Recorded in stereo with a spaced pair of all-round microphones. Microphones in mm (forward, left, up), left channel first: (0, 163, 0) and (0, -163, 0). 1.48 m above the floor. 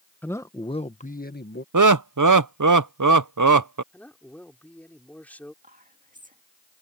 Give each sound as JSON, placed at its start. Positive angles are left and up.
{"t": 0.2, "sound": "a man speaking", "side_deg": 5}
{"t": 1.7, "sound": "laughter", "side_deg": -70}
{"t": 3.9, "sound": "a man speaking", "side_deg": 5}
{"t": 5.6, "sound": "whispering", "side_deg": -25}